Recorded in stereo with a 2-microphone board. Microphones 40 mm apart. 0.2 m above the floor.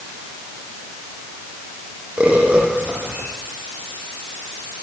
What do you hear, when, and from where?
2.2 s a bird: 30° right (ahead or behind), 8 m